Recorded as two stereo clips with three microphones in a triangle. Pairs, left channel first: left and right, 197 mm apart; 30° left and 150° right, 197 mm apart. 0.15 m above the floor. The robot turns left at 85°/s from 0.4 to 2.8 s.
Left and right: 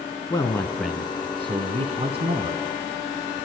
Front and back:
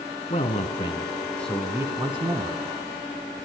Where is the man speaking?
35° left, 1.4 m; by 2.6 s 155° right, 1.4 m.